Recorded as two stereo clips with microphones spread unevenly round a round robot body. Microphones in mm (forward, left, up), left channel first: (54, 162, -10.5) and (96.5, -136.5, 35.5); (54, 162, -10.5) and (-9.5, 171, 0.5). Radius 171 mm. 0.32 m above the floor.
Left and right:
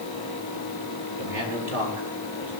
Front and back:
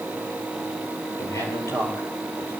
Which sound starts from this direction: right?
A man speaking, at 1.2 s.